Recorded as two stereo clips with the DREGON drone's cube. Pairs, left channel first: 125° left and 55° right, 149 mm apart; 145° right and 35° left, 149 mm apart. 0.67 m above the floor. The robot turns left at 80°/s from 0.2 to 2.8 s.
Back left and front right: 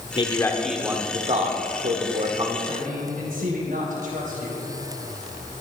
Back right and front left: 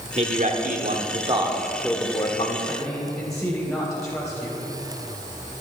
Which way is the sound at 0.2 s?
75° left.